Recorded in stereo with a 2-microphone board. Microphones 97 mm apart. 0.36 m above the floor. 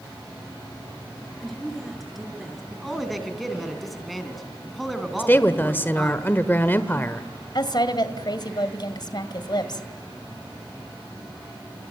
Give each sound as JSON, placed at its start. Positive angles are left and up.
{"t": 1.4, "sound": "a woman speaking", "side_deg": 0, "distance_m": 6.5}
{"t": 2.7, "sound": "a man speaking", "side_deg": 0, "distance_m": 4.0}
{"t": 5.2, "sound": "a woman speaking", "side_deg": 20, "distance_m": 1.2}
{"t": 7.5, "sound": "a woman speaking", "side_deg": 50, "distance_m": 1.9}